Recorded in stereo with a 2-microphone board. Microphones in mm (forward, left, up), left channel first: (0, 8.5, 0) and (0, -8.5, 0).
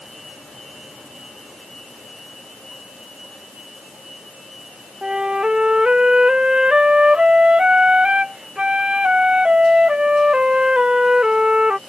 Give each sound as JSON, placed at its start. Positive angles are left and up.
{"t": 5.0, "sound": "a flute", "side_deg": -55}